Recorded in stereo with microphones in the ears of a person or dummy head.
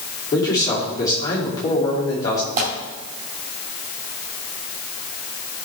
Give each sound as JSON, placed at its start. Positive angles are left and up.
{"t": 0.3, "sound": "a man speaking", "side_deg": 15, "distance_m": 2.5}
{"t": 2.6, "sound": "tearing paper", "side_deg": -40, "distance_m": 2.5}